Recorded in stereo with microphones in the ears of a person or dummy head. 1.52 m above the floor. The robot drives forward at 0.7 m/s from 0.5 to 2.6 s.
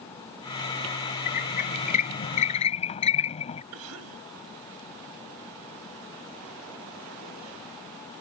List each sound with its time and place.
1.3 s a squeak: 45° left (ahead or behind); by 3.6 s 35° left (ahead or behind)
3.7 s a cough: 75° right (ahead or behind)